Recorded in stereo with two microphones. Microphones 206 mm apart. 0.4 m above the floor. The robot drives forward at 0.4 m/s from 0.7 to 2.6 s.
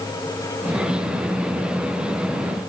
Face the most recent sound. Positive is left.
No sound to turn to.